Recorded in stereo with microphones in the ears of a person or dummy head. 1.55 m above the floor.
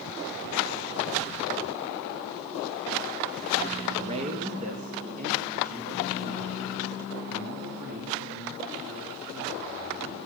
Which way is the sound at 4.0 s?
30° right (ahead or behind).